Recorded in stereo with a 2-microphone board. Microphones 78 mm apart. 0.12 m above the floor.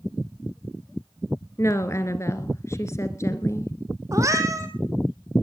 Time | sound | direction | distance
1.6 | a woman speaking | 35° left (ahead or behind) | 2.0 m
4.1 | a cat meowing | 40° right (ahead or behind) | 2 m